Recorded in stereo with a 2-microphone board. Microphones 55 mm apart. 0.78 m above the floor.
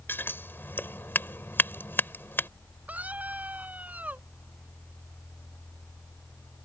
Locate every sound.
0.1 s scissors: 40° left (ahead or behind)
2.9 s a scream: 25° right (ahead or behind)